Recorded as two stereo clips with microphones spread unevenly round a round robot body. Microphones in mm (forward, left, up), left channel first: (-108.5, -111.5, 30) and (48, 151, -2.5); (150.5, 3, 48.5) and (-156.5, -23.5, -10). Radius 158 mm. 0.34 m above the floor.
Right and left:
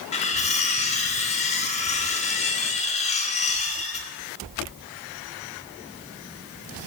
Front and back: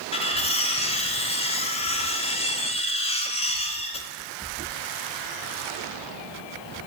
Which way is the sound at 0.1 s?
65° right.